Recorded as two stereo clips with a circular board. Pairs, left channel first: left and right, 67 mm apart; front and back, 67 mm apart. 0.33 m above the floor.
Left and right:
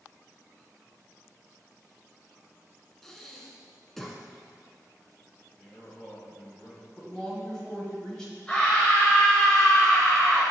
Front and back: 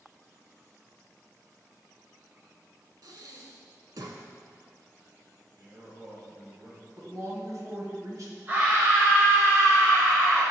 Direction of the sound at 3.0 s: 175° left.